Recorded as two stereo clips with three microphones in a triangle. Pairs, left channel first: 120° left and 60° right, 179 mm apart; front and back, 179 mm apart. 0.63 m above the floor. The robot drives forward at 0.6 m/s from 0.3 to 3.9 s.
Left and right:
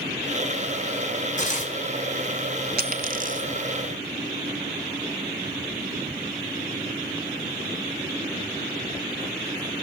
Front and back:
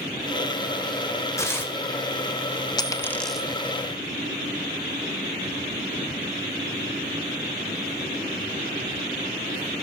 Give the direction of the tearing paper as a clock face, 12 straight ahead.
10 o'clock.